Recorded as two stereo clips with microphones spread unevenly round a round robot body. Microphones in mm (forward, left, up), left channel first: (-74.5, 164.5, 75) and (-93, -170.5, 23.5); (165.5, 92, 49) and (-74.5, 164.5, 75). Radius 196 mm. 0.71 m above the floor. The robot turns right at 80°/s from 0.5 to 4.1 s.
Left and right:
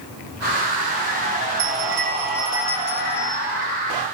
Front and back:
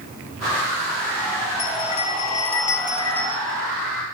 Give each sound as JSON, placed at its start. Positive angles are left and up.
{"t": 1.6, "sound": "a bell", "azimuth_deg": -60, "distance_m": 5.5}